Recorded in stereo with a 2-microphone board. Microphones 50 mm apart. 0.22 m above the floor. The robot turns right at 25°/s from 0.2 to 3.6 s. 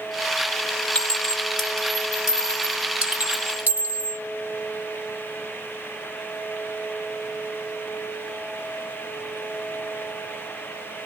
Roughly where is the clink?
Left.